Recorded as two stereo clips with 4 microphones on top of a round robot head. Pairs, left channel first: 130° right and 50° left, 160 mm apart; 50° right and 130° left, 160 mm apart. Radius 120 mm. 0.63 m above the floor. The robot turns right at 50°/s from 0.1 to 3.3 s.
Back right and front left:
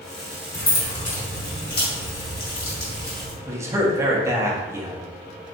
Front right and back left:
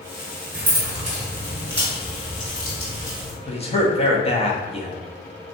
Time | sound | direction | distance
0.5 | keys jangling | 150° left | 1.6 m
3.5 | a man speaking | 20° right | 0.8 m